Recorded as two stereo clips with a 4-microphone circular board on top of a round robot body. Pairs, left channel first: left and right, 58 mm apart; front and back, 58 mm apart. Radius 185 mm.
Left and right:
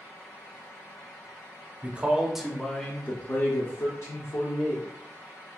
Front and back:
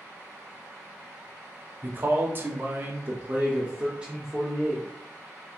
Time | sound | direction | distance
1.8 | a man speaking | 145° right | 0.9 m